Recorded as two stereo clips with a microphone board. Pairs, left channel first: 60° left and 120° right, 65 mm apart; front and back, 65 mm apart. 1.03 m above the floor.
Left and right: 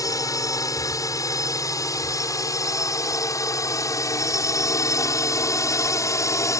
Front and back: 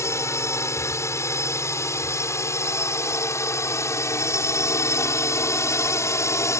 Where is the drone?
35° left; by 6.6 s 30° left.